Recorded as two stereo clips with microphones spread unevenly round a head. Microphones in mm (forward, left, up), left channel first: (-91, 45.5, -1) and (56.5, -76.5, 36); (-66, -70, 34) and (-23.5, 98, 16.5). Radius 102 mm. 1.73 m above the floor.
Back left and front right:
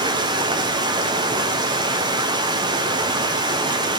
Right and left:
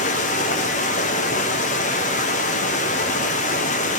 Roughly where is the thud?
No thud in this recording.